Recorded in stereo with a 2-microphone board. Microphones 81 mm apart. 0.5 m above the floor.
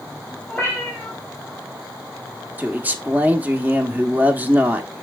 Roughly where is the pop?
I don't hear a pop.